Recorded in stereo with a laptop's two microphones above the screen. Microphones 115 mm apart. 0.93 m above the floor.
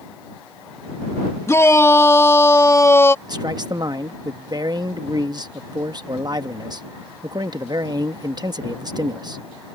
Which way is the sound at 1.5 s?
25° left (ahead or behind).